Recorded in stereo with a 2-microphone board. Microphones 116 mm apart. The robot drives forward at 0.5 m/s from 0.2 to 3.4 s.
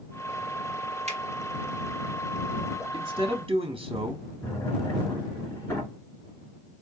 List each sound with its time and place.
1.1 s a finger snap: 70° right (ahead or behind), 1.2 m
2.9 s a man speaking: 40° right (ahead or behind), 0.7 m
4.4 s a drawer: 20° left (ahead or behind), 2.5 m